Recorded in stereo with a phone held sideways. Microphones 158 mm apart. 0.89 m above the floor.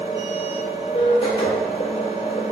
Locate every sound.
0.0 s a machine running: 35° left (ahead or behind), 0.9 m